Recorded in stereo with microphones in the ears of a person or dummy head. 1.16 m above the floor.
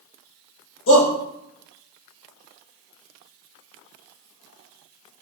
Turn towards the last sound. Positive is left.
turn(degrees=80)